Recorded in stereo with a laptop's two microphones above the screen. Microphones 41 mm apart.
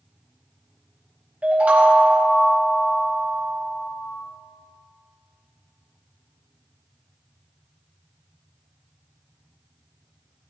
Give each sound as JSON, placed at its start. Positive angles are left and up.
{"t": 1.4, "sound": "a chime", "side_deg": -35, "distance_m": 1.0}